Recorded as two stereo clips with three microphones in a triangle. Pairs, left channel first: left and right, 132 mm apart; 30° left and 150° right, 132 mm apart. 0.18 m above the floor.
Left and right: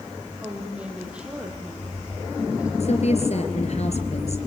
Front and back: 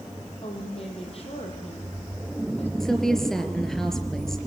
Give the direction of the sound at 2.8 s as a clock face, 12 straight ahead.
8 o'clock.